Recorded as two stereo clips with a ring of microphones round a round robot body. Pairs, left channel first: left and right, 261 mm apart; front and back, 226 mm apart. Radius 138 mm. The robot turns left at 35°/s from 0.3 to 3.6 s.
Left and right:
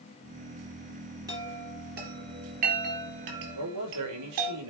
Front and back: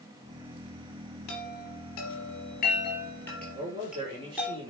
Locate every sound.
1.3 s a chime: 10° right, 3.5 m; by 4.5 s 95° right, 3.5 m
3.5 s a man speaking: 105° right, 4.5 m